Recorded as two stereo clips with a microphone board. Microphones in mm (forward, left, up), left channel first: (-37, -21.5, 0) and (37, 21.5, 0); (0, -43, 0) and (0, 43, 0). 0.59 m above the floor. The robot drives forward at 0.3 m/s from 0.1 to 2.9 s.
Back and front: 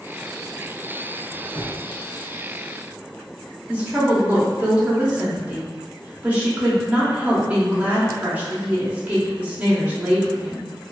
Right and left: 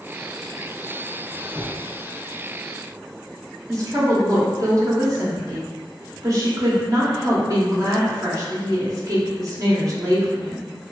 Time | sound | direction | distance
1.3 | a squeak | 145° left | 0.7 m
3.7 | a woman speaking | 90° left | 0.8 m